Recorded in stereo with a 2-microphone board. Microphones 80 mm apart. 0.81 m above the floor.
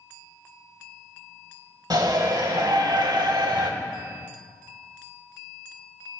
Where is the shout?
60° right (ahead or behind), 3.5 m; by 3.7 s 80° right, 3 m.